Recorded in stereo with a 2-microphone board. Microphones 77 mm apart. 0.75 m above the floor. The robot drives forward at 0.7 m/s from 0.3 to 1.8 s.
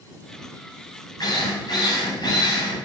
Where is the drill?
55° left (ahead or behind), 4.5 m; by 2.9 s 60° left (ahead or behind), 4.5 m.